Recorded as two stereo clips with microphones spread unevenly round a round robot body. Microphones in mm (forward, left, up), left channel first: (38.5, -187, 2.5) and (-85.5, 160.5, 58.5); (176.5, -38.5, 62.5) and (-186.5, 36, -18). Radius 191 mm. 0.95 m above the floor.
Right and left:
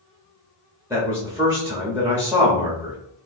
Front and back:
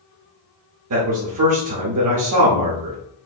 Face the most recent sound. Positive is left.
turn(degrees=-165)